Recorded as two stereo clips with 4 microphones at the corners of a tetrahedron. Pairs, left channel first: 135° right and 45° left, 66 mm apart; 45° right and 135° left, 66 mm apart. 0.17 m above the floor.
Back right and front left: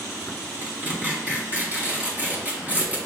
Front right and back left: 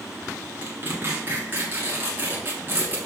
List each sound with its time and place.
0.6 s tearing paper: 100° left, 1.4 m